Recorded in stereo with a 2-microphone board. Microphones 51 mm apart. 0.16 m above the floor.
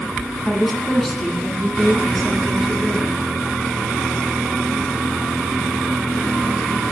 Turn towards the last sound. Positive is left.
turn(degrees=5)  # may be behind; listen again after turning